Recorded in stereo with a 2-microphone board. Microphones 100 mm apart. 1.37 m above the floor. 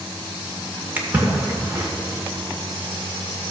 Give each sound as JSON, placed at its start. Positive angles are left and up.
{"t": 1.0, "sound": "a splash", "side_deg": -20, "distance_m": 1.9}